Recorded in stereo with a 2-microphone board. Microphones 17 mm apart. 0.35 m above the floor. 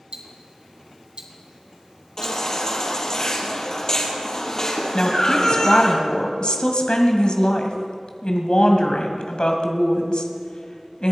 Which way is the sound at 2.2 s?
30° left (ahead or behind).